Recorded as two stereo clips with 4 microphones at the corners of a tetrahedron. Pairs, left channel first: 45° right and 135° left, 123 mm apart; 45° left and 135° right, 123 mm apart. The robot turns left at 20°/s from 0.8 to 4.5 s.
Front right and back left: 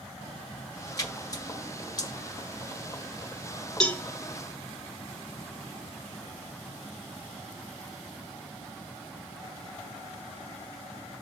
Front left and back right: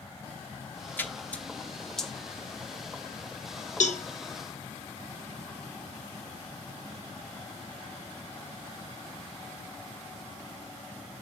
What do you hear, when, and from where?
1.0 s a splash: 15° right, 0.8 m; by 2.1 s 40° right, 0.8 m
3.8 s a cowbell: 40° left, 0.6 m; by 4.0 s 35° left, 0.6 m